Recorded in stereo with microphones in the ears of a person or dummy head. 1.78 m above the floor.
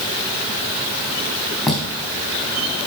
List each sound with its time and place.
1.7 s footsteps: centre (ahead or behind), 4.5 m